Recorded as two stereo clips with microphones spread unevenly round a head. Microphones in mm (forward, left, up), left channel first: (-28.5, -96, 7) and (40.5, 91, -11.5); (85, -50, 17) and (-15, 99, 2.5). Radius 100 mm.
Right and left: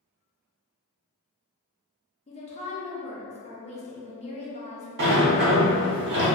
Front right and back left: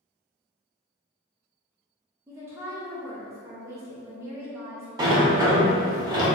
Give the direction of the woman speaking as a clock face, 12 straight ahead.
6 o'clock.